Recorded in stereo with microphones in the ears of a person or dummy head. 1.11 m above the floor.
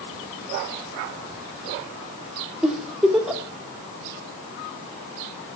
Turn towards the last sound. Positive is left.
turn(degrees=-10)  # may be behind; listen again after turning